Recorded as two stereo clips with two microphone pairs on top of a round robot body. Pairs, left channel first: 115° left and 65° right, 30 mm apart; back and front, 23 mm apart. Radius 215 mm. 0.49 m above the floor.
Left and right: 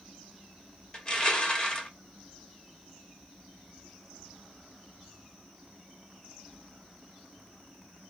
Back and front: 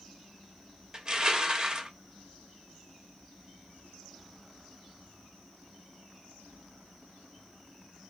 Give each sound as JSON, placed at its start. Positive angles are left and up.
{"t": 0.9, "sound": "crushing", "azimuth_deg": 55, "distance_m": 1.1}